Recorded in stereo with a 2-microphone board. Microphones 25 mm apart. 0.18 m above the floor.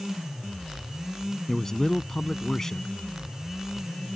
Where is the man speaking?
20° left (ahead or behind).